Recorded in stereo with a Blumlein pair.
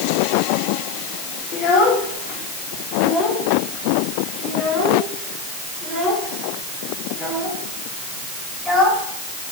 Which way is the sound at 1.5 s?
30° left.